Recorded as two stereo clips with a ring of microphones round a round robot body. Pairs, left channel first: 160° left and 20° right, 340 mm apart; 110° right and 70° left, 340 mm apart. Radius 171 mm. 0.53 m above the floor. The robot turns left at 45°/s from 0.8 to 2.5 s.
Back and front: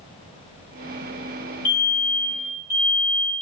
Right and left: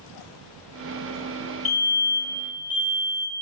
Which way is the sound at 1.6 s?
30° left.